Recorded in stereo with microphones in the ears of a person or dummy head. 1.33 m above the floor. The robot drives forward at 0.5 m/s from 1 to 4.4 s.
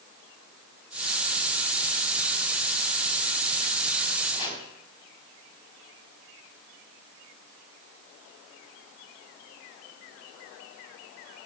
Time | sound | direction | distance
4.3 | chopping | 25° left (ahead or behind) | 3 m